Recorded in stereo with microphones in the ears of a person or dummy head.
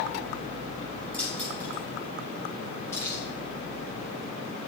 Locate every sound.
1.1 s keys jangling: 10° left (ahead or behind), 5.5 m; by 3.2 s 25° left (ahead or behind), 6 m